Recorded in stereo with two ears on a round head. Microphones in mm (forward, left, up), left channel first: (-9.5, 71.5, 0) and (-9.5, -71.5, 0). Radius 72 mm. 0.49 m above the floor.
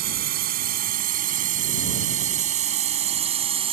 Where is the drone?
70° right (ahead or behind); by 3.7 s 40° right (ahead or behind).